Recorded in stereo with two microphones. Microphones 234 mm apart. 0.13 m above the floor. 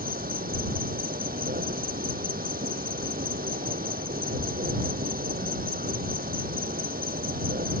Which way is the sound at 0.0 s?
40° right (ahead or behind).